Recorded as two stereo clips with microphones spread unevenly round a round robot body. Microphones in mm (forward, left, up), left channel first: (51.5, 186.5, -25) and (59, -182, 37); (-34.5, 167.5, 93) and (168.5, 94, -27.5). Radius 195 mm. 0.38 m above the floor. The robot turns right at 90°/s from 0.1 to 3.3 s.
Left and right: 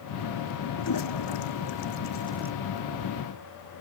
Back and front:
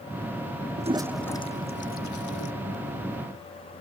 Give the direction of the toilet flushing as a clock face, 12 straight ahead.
11 o'clock.